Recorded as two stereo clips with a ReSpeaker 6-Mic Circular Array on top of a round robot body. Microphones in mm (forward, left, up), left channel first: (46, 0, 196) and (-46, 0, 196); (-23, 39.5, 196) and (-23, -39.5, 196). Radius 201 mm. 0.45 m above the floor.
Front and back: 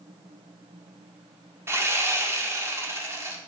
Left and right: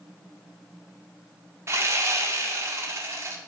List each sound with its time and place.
1.7 s sawing: 130° right, 1.7 m